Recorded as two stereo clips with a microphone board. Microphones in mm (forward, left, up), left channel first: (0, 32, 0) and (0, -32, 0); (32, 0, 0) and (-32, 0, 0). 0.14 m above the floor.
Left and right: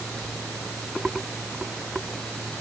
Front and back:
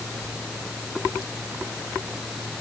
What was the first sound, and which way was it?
Only background noise.